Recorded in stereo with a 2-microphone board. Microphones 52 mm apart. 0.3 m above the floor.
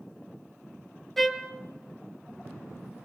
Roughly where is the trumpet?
Centre.